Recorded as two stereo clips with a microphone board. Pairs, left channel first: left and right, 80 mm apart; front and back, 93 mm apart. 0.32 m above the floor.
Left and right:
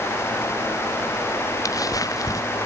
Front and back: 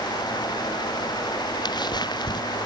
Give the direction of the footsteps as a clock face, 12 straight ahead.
11 o'clock.